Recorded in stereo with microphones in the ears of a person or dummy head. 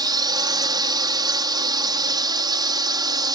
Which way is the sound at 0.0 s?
20° right (ahead or behind).